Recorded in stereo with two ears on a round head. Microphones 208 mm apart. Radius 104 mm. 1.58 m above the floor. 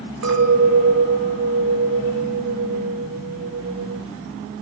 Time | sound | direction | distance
0.2 | a clink | 80° right | 4 m